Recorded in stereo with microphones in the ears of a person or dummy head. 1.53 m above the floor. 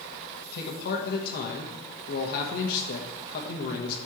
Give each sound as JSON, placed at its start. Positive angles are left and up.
{"t": 0.5, "sound": "a man speaking", "side_deg": 55, "distance_m": 1.2}